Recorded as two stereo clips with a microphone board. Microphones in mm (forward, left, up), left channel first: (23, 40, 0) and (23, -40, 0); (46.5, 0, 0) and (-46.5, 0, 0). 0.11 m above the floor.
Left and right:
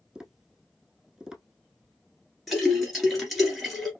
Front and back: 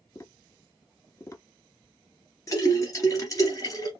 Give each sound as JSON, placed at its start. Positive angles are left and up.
{"t": 0.1, "sound": "tapping", "azimuth_deg": -15, "distance_m": 0.8}
{"t": 2.5, "sound": "a splash", "azimuth_deg": 0, "distance_m": 1.6}